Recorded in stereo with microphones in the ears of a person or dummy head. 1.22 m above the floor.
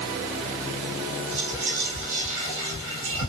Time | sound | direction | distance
1.3 | whispering | 70° right (ahead or behind) | 1.3 m